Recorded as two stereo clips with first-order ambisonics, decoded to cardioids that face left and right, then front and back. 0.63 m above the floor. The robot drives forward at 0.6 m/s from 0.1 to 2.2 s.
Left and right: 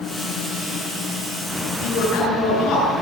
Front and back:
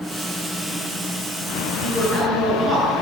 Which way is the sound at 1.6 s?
105° left.